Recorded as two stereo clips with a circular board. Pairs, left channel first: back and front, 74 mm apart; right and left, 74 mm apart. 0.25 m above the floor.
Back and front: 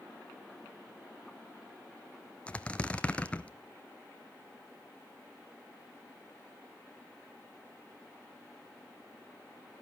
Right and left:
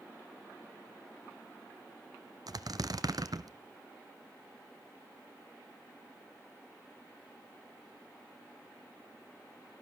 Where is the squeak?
110° left, 0.6 m.